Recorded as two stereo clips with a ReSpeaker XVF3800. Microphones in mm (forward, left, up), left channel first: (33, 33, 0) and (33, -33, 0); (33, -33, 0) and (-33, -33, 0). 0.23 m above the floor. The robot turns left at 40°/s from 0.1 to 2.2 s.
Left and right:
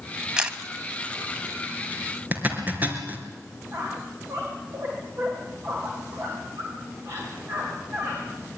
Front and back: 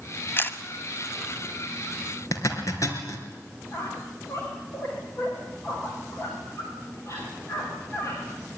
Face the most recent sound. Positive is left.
turn(degrees=-45)